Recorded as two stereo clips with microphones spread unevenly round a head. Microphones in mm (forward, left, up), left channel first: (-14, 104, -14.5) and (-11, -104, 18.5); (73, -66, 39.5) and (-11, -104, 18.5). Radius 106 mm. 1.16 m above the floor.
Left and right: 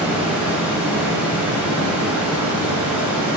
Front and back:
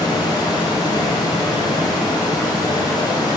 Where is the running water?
10° right, 2.5 m.